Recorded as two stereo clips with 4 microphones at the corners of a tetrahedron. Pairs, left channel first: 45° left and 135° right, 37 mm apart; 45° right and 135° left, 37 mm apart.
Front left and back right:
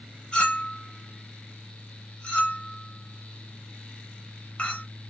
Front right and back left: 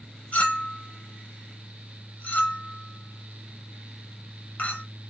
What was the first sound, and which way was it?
A clink, 15° right.